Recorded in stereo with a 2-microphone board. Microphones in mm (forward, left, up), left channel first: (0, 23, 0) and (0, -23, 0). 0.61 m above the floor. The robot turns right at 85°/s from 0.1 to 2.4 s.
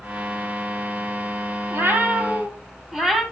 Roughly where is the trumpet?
No trumpet in this recording.